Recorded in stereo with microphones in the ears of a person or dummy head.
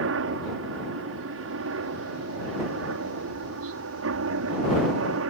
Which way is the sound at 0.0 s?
60° right (ahead or behind).